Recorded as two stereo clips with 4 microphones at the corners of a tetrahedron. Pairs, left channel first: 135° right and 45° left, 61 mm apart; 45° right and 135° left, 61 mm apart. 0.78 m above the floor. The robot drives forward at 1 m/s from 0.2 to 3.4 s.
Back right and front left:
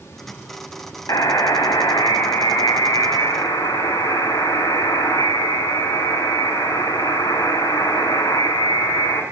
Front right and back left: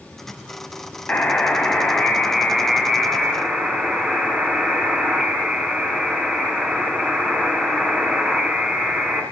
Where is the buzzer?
110° right, 3 m; by 9.2 s 140° right, 4.5 m.